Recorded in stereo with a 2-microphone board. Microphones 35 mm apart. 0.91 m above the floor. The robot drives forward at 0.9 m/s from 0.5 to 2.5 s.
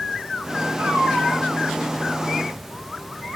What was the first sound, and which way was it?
A cat meowing, 80° right.